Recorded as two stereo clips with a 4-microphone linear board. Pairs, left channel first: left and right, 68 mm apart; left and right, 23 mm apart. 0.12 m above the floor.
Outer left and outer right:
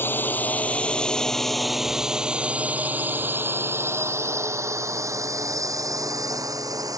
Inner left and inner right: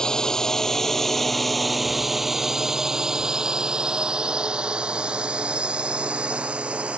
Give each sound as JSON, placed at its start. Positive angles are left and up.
{"t": 0.0, "sound": "a drone", "side_deg": 35}